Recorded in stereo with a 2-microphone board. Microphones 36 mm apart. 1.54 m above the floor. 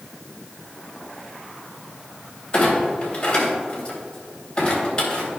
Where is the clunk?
25° left (ahead or behind), 2.5 m.